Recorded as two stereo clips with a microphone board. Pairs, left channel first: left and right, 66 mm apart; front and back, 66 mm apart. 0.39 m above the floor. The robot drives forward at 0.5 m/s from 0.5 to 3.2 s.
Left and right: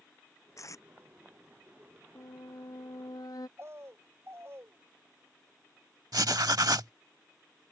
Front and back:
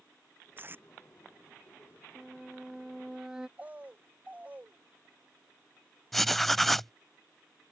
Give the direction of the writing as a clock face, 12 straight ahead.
3 o'clock.